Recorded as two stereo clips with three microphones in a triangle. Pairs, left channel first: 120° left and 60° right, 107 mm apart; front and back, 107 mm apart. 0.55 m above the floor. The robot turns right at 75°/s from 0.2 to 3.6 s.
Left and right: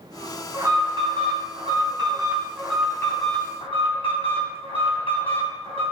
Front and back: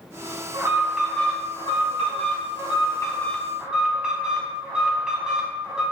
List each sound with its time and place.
0.5 s an alarm: 130° right, 3.5 m; by 5.8 s 100° left, 3.5 m